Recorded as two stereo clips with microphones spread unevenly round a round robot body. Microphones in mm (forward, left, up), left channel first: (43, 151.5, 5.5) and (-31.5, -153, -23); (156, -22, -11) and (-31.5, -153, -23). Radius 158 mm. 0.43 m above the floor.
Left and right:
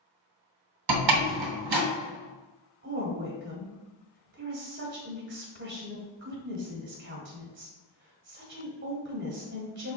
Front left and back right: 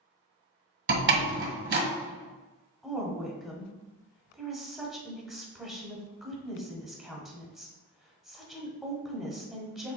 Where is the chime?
I don't hear a chime.